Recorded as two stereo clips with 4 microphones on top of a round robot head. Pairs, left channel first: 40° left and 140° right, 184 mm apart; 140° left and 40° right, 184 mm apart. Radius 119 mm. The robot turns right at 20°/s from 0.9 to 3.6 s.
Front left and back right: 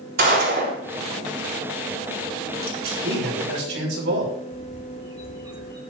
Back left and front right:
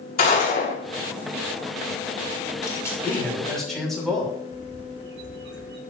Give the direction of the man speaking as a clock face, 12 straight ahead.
5 o'clock.